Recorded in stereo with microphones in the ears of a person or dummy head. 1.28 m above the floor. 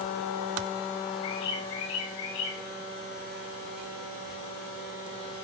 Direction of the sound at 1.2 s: 60° left (ahead or behind).